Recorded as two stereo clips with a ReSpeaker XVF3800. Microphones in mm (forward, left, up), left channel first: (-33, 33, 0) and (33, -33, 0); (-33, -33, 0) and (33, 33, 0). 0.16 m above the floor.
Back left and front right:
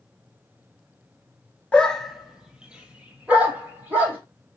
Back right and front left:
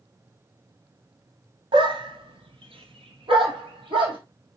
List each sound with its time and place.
1.7 s a dog barking: 60° left, 0.6 m; by 4.2 s 25° left, 2 m